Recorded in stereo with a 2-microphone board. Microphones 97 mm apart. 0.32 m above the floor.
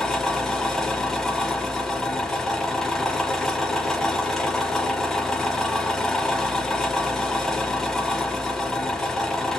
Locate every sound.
0.0 s an engine running: 5° left (ahead or behind), 0.8 m